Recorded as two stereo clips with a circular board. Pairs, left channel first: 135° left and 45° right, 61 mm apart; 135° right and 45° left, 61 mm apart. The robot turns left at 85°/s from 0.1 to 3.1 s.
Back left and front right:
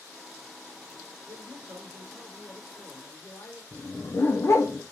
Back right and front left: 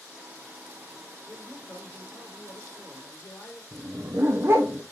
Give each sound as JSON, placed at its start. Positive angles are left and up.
{"t": 1.3, "sound": "a man speaking", "azimuth_deg": -35, "distance_m": 5.0}
{"t": 3.7, "sound": "a dog barking", "azimuth_deg": 95, "distance_m": 1.8}